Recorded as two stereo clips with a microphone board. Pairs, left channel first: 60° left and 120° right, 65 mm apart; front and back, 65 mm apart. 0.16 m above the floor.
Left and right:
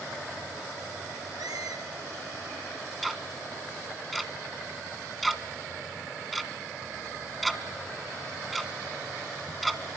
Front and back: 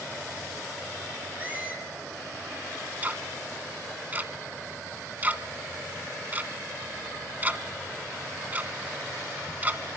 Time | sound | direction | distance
1.4 | a squeak | 115° right | 3.5 m
3.0 | ticking | 150° left | 1.4 m